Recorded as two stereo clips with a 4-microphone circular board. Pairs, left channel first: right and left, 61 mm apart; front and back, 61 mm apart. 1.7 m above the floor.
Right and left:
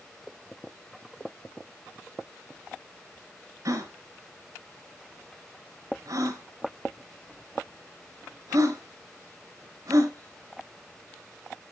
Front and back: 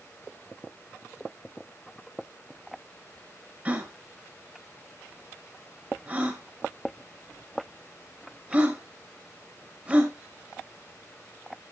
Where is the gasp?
120° left, 3 m.